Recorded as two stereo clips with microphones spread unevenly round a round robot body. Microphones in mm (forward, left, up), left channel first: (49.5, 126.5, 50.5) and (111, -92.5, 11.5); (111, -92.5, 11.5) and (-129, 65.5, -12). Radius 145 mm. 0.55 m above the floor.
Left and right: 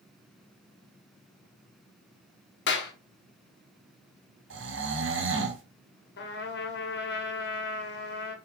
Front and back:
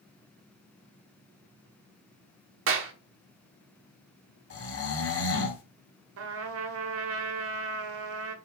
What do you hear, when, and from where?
2.7 s a clap: 140° left, 1.2 m
4.5 s snoring: 75° right, 1.9 m
6.2 s a trumpet: 150° left, 1.3 m